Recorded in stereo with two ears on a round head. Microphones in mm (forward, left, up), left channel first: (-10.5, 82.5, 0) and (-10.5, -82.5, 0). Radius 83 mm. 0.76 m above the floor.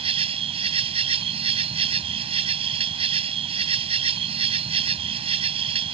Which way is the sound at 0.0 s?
30° right (ahead or behind).